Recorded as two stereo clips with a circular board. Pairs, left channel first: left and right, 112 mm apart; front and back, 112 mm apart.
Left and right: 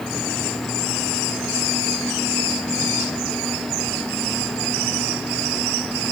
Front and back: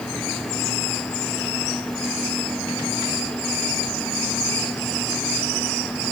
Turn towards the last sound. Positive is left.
No sound to turn to.